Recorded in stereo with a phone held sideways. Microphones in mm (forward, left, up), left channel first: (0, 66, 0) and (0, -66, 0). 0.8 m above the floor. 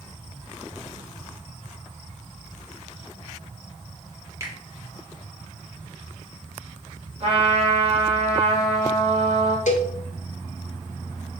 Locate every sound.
4.4 s a finger snap: 20° right (ahead or behind), 1.1 m
7.2 s a trumpet: 50° right (ahead or behind), 1.3 m
9.7 s a cowbell: 65° left (ahead or behind), 0.7 m